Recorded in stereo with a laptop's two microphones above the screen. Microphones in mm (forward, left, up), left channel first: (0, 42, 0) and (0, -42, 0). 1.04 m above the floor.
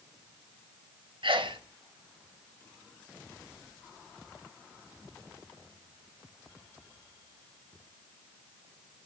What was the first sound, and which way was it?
A sneeze, 80° right.